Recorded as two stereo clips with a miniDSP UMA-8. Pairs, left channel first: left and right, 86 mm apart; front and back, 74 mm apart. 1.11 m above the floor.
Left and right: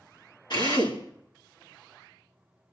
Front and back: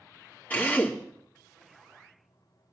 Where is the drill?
65° left, 3 m.